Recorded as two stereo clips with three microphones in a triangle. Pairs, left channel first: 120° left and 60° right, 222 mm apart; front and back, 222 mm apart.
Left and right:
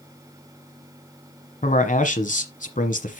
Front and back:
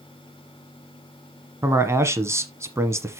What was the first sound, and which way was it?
A man speaking, 110° left.